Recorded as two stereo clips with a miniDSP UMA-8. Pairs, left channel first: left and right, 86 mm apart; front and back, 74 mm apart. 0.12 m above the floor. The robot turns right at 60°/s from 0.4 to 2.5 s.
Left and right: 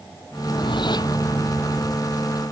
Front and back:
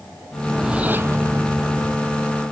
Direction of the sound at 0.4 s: 85° left.